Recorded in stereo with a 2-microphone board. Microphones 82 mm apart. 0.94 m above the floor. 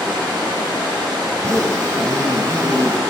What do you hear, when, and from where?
0.0 s running water: 75° right (ahead or behind), 2.5 m
1.3 s a zipper: 35° right (ahead or behind), 0.8 m